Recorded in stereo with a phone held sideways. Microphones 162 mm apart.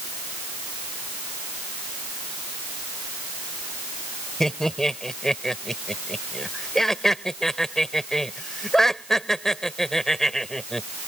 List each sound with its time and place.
4.4 s laughter: 5° left (ahead or behind)